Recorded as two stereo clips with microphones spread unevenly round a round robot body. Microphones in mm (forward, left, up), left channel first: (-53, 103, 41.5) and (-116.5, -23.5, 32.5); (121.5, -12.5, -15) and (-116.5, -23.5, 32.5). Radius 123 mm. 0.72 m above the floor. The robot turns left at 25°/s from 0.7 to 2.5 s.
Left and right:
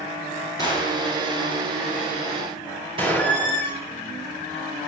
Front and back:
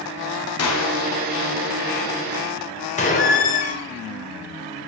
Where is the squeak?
55° right, 2 m.